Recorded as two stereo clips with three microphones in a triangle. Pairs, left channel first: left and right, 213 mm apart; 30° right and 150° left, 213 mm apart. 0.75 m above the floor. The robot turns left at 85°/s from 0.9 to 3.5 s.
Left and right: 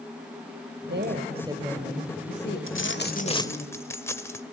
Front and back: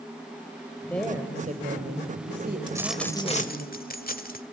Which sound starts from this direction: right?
A woman speaking, at 0.9 s.